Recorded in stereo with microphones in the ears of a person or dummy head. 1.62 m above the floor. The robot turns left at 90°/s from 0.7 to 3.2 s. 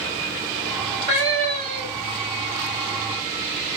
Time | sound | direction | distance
1.0 | a cat meowing | 55° left | 2.0 m